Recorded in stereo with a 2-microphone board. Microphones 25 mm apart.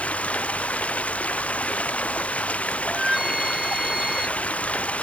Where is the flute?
20° right (ahead or behind).